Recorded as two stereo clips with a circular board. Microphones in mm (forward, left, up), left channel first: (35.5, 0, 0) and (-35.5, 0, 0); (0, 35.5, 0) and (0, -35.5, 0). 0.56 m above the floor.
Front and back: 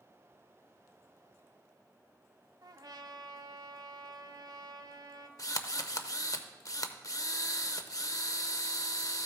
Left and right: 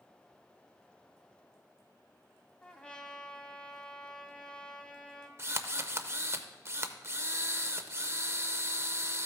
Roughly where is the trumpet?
Behind.